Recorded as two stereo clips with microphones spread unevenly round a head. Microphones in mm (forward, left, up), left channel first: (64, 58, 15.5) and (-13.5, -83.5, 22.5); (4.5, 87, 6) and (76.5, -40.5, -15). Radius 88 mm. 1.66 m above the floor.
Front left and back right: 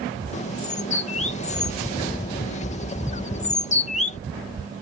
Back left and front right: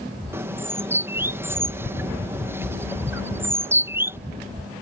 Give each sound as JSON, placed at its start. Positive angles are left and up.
{"t": 0.3, "sound": "a bird", "azimuth_deg": 15}